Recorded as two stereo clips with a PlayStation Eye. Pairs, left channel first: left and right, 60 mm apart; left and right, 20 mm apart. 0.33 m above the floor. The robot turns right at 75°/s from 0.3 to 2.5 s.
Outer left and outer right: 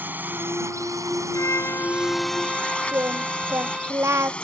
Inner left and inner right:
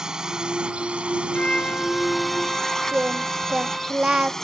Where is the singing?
50° right (ahead or behind).